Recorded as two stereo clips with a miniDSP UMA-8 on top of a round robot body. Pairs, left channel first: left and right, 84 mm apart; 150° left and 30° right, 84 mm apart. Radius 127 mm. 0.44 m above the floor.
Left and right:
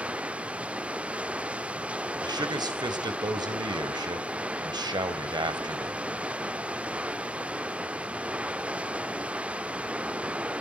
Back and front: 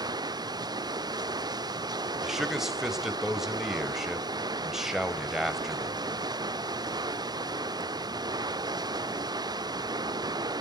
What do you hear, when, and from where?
0.0 s running water: 15° right, 1.0 m
2.2 s a man speaking: 115° right, 2.5 m